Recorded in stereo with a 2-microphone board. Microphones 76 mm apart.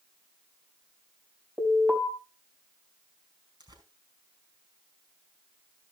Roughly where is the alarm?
Centre.